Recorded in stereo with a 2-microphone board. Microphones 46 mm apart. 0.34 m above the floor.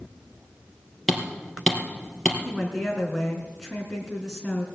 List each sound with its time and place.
1.1 s hammering: 5° left (ahead or behind), 3.5 m
2.5 s a woman speaking: centre (ahead or behind), 3.5 m